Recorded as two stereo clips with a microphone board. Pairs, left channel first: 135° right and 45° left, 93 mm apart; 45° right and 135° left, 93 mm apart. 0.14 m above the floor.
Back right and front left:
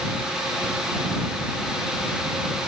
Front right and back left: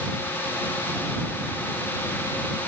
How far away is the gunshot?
I don't hear a gunshot.